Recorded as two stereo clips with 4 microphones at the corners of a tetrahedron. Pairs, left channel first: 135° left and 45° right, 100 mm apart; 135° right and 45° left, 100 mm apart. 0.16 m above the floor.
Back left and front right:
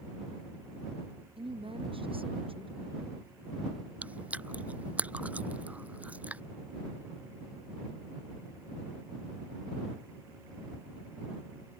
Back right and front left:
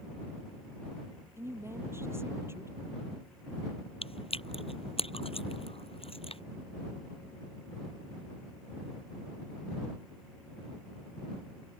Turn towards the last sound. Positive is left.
turn(degrees=-120)